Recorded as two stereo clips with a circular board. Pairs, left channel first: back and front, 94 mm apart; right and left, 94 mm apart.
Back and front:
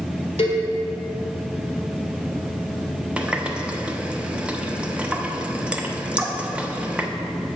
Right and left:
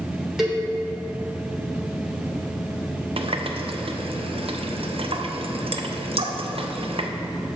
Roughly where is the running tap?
Left.